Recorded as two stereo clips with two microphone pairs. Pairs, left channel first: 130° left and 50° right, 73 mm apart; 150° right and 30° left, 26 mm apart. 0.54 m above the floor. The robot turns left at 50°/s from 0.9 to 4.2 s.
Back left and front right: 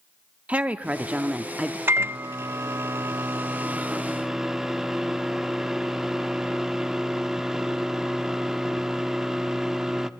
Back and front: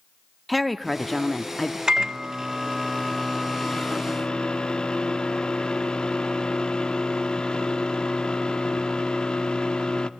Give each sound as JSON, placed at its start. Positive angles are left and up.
{"t": 0.5, "sound": "a woman speaking", "azimuth_deg": -75, "distance_m": 0.7}
{"t": 1.9, "sound": "a microwave", "azimuth_deg": -15, "distance_m": 0.6}